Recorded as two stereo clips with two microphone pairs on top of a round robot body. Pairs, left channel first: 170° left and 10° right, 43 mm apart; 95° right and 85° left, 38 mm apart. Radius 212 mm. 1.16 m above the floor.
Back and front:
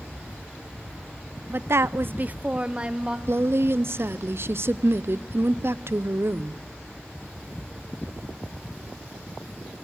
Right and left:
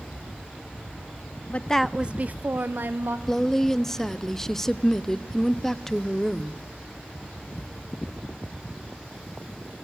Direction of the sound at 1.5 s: 50° right.